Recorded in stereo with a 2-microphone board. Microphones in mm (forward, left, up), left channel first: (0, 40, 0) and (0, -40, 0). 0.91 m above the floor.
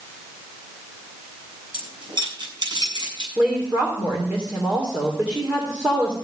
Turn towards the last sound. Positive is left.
turn(degrees=-25)  # may be behind; listen again after turning